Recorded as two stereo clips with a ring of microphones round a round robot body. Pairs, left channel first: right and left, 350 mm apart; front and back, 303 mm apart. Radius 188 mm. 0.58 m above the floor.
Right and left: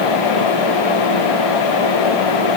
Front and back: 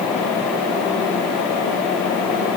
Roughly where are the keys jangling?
No keys jangling in this recording.